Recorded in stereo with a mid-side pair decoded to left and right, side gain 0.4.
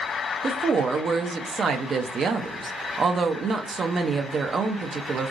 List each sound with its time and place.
0.4 s a woman speaking: 50° right, 0.6 m